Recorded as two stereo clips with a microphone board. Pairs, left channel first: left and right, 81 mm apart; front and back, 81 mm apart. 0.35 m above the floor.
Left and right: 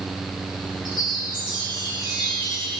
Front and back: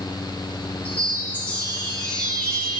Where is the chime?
70° right, 2.5 m.